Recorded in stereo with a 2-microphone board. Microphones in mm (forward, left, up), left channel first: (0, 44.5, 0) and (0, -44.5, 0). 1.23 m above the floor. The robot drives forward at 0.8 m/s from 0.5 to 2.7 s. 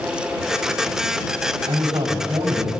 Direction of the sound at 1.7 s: 85° right.